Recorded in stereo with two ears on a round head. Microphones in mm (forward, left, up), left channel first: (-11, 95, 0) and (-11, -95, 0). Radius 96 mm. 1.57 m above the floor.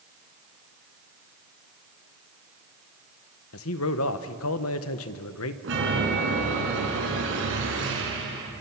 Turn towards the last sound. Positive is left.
turn(degrees=-65)  # may be behind; listen again after turning